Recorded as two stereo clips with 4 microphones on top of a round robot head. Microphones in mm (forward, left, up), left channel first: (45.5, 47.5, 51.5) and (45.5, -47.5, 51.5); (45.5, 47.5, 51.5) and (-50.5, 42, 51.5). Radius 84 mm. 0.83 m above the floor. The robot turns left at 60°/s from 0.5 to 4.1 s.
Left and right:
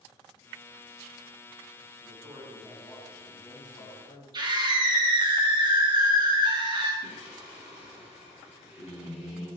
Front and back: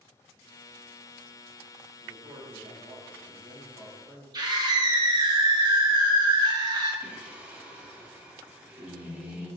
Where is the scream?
130° right, 1.8 m.